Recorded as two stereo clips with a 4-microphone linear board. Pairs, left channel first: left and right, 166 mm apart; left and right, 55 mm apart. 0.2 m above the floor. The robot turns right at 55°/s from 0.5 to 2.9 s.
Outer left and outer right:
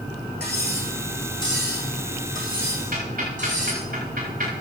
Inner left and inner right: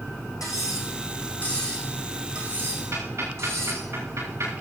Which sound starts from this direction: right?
Ticking, at 2.9 s.